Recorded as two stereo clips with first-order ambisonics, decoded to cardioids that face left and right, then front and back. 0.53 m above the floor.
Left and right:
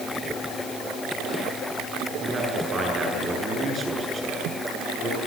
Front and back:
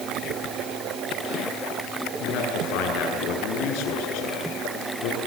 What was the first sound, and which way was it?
A man speaking, 25° right.